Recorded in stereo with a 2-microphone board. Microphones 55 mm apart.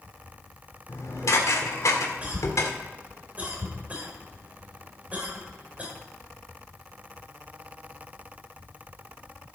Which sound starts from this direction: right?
A cough, at 2.2 s.